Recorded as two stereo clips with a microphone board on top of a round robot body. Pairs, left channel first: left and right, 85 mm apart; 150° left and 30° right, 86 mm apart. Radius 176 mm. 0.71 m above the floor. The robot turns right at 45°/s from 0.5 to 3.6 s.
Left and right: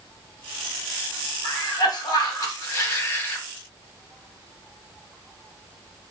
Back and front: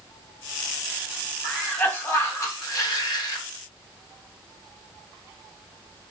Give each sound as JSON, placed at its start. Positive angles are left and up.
{"t": 1.4, "sound": "a cough", "azimuth_deg": 65, "distance_m": 1.4}